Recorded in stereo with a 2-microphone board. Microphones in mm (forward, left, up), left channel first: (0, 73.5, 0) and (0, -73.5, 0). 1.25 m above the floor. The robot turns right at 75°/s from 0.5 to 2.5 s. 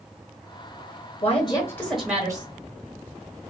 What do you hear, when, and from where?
1.2 s a woman speaking: 120° left, 1.0 m; by 2.5 s 145° right, 1.0 m